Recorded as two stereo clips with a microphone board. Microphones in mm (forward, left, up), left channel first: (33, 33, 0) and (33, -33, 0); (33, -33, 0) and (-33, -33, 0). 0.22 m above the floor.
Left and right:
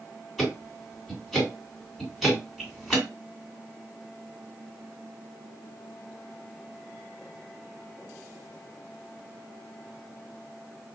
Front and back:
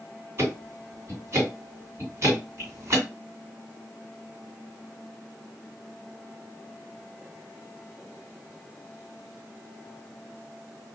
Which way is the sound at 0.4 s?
175° right.